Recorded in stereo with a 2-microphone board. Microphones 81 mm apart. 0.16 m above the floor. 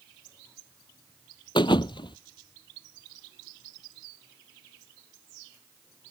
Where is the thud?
75° left (ahead or behind).